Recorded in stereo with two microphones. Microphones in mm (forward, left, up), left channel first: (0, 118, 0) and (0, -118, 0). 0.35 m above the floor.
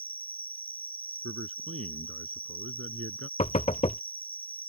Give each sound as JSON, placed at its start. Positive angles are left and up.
{"t": 0.0, "sound": "an insect", "side_deg": 5}
{"t": 1.2, "sound": "a man speaking", "side_deg": -70}
{"t": 3.4, "sound": "knocking", "side_deg": 30}